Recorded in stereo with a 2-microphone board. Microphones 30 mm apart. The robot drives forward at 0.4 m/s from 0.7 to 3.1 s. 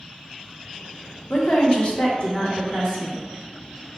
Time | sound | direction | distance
1.3 | a woman speaking | 50° left (ahead or behind) | 0.8 m